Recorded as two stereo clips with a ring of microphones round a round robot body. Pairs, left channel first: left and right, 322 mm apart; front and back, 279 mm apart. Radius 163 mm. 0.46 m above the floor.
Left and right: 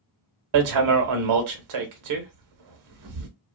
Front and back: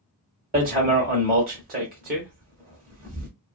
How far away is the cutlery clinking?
No cutlery clinking in this recording.